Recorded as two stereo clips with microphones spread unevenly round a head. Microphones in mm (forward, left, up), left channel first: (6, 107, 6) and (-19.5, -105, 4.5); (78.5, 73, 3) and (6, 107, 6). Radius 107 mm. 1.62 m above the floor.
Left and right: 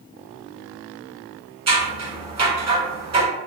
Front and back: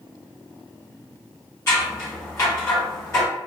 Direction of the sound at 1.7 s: 55° right.